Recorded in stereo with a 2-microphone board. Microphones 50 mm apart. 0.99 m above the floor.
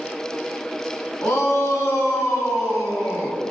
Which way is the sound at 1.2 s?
85° left.